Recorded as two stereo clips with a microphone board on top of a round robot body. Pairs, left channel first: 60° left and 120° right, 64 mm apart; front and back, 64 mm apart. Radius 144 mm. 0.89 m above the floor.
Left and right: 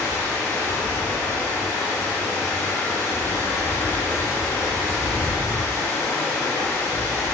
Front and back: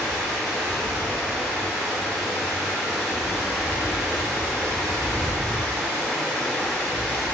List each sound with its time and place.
0.0 s running water: 80° left, 2.5 m